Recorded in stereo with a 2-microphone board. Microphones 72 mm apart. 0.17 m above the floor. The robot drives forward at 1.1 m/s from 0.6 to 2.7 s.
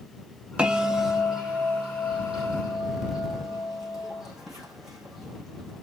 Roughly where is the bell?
Centre.